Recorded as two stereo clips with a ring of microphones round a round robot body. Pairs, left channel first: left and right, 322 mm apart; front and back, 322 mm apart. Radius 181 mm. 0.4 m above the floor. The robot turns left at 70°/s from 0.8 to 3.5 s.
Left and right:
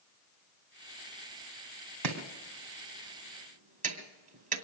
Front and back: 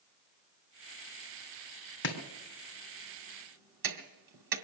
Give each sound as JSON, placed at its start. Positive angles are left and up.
{"t": 2.0, "sound": "chopping", "azimuth_deg": -55, "distance_m": 2.5}